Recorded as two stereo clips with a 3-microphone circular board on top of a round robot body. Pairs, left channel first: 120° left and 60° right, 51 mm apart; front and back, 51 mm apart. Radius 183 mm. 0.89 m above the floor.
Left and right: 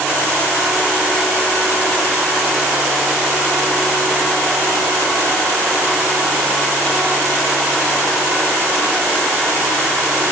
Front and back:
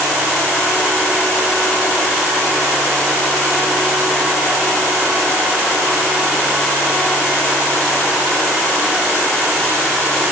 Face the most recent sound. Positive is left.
No sound to turn to.